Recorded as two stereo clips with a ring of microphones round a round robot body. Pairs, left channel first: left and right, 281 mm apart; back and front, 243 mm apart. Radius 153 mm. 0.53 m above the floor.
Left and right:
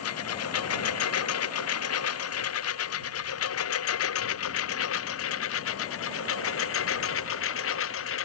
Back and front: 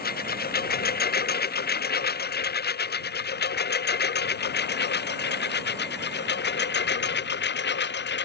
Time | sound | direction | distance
0.0 | a lawn mower | 130° left | ?